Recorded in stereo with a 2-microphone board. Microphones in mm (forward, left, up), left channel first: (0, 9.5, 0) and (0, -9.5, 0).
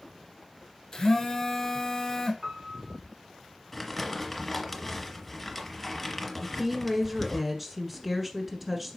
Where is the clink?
No clink in this recording.